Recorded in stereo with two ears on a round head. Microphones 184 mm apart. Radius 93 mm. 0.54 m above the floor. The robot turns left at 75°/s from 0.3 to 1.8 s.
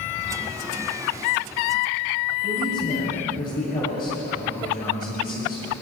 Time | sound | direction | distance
2.4 | a man speaking | 45° left (ahead or behind) | 9 m